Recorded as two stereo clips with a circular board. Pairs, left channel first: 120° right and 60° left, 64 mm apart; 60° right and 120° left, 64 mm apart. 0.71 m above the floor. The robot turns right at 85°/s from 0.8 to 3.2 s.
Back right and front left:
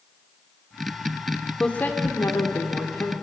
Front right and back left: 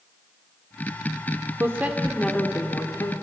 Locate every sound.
1.6 s a woman speaking: 165° left, 2.5 m; by 3.1 s 65° right, 2.5 m